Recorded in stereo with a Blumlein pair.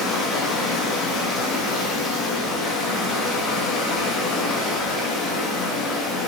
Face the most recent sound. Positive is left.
turn(degrees=10)